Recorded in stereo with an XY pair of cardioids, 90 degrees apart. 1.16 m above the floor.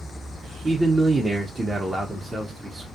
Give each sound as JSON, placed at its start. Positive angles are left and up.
{"t": 0.6, "sound": "a man speaking", "azimuth_deg": -25, "distance_m": 0.6}